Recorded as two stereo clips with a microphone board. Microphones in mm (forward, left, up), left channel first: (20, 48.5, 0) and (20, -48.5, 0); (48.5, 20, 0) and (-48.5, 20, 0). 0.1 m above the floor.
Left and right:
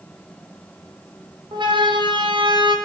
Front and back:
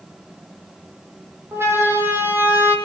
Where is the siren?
115° right, 5.5 m; by 2.8 s 110° right, 5.5 m.